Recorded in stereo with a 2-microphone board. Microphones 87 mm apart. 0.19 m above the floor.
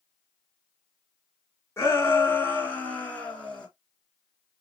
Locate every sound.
1.8 s a shout: 30° left (ahead or behind), 2 m; by 3.7 s 10° left (ahead or behind), 3 m